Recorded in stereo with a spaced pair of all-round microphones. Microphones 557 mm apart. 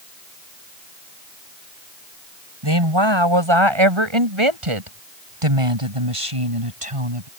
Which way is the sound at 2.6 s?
50° right (ahead or behind).